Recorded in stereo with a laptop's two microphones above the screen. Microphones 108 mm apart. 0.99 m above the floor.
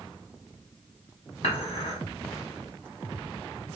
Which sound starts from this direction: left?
Dishes clattering, at 1.4 s.